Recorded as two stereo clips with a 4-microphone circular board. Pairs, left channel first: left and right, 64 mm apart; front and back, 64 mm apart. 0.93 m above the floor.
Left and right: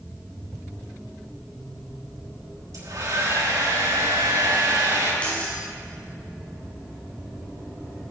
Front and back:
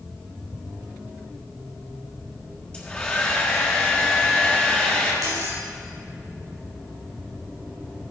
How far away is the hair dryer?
About 4.5 m.